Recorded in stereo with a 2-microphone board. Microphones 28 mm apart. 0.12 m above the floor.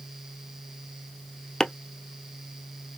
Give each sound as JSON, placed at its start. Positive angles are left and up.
{"t": 1.6, "sound": "chopping", "side_deg": 20, "distance_m": 0.5}